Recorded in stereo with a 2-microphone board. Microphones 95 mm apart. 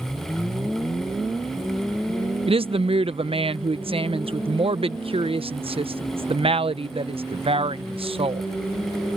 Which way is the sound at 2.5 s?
70° right (ahead or behind).